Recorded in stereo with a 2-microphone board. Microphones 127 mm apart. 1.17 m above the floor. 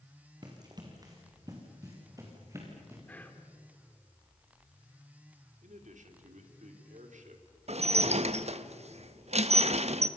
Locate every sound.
0.4 s running footsteps: 35° right (ahead or behind), 4 m; by 3.0 s 20° right (ahead or behind), 6 m
3.1 s whispering: 10° left (ahead or behind), 3 m
5.6 s a man speaking: 80° right, 3 m
7.7 s dishes clattering: 60° right (ahead or behind), 0.8 m